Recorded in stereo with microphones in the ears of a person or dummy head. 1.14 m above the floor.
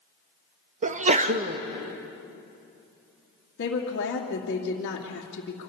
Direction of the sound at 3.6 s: 50° left (ahead or behind).